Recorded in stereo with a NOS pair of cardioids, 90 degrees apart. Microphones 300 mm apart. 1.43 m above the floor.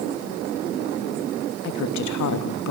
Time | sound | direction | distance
1.6 | a woman speaking | 60° left | 3 m